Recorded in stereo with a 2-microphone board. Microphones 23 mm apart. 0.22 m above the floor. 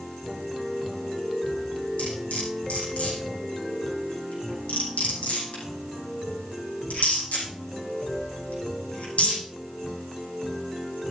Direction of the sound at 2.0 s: 85° left.